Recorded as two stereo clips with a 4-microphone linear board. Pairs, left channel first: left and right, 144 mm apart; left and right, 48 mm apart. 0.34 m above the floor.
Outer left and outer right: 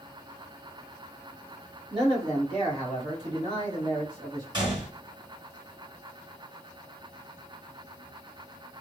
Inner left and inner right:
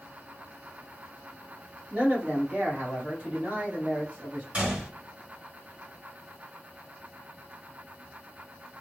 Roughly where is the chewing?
I don't hear chewing.